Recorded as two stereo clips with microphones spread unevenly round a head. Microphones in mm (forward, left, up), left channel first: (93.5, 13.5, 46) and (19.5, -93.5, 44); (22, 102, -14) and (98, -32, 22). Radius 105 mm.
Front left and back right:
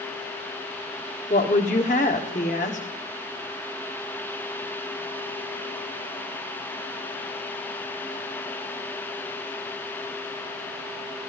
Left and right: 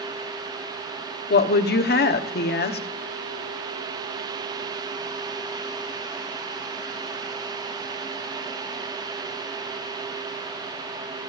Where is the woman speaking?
105° left, 1.2 m.